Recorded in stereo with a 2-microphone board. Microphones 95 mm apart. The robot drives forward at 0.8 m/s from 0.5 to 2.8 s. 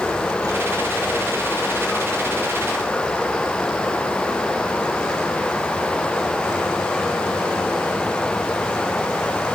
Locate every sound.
0.0 s running water: 10° left (ahead or behind)